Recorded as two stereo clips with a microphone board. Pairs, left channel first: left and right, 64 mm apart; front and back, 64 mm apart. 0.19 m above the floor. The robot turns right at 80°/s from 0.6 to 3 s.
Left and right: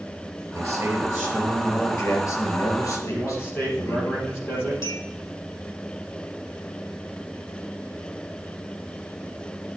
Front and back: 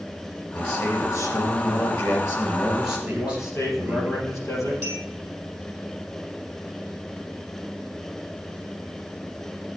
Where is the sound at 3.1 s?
40° left, 4.5 m.